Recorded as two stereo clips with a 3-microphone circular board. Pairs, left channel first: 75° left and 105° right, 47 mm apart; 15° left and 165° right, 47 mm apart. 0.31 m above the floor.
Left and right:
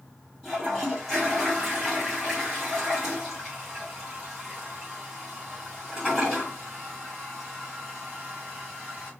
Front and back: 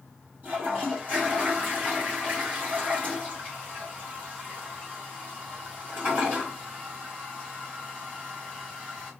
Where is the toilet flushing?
165° left, 2 m.